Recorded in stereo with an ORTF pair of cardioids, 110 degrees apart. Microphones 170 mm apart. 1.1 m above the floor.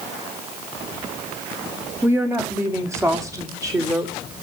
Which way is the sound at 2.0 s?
10° right.